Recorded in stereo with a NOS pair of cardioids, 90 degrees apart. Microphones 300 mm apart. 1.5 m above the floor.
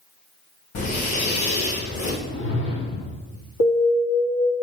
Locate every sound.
0.8 s breathing: 65° left, 5.5 m
2.2 s a whoosh: 40° left, 3.5 m
3.6 s an alarm: 55° left, 4 m